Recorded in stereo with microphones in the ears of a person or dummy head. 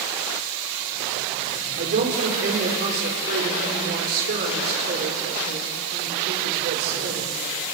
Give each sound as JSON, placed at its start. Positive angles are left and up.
{"t": 1.8, "sound": "a woman speaking", "side_deg": -55, "distance_m": 3.5}